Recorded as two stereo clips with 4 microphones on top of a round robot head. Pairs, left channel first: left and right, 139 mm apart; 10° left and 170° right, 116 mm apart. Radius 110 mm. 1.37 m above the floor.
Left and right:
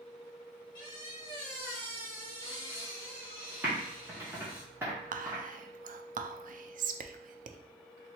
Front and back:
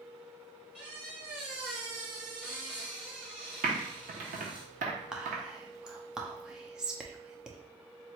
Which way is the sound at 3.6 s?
170° right.